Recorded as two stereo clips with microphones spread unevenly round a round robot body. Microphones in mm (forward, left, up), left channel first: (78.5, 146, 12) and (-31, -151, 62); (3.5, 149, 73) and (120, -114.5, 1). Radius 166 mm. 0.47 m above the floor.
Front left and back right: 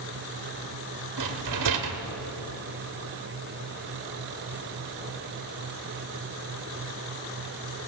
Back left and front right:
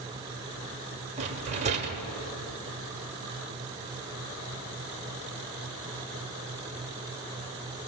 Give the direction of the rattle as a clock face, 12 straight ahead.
4 o'clock.